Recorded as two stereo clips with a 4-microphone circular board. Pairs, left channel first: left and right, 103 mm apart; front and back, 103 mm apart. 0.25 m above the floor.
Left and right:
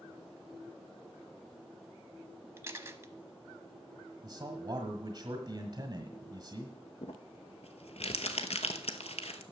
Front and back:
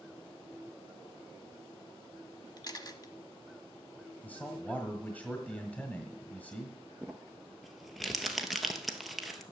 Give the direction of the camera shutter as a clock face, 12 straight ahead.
1 o'clock.